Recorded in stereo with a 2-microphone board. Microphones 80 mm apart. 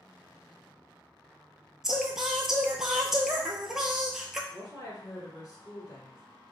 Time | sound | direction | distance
1.8 | singing | 5° right (ahead or behind) | 0.6 m
4.5 | a woman speaking | 45° left (ahead or behind) | 1.9 m